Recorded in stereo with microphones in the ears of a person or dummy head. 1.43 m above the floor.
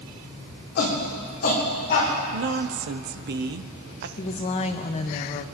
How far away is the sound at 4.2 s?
About 0.9 m.